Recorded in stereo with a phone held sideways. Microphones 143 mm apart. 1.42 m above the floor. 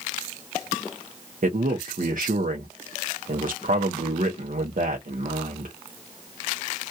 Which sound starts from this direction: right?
A man speaking, at 1.4 s.